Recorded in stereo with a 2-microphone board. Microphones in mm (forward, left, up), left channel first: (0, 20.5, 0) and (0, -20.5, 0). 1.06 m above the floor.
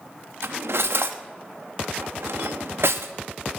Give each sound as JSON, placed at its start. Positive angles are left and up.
{"t": 0.4, "sound": "cutlery clinking", "side_deg": -75, "distance_m": 0.8}